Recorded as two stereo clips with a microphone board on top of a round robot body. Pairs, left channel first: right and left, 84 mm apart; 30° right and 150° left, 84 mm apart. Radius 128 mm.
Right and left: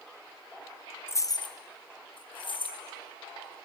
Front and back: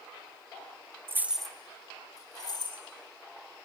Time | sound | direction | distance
1.1 | keys jangling | 150° right | 0.5 m